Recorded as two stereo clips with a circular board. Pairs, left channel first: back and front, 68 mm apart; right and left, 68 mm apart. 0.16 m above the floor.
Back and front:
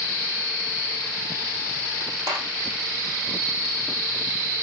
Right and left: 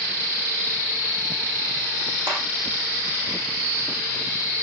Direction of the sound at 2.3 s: 35° left.